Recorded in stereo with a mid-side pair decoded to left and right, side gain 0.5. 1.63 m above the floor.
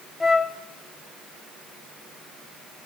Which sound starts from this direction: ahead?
A flute, at 0.2 s.